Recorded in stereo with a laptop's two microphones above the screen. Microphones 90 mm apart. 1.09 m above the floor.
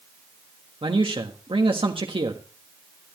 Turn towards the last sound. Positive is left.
turn(degrees=-75)  # may be behind; listen again after turning